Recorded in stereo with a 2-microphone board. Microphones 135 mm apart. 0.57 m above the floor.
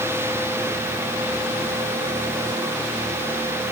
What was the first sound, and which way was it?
Only background noise.